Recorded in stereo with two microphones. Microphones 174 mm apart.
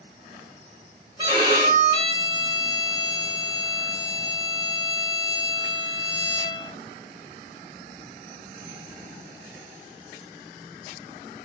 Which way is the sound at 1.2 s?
25° right (ahead or behind).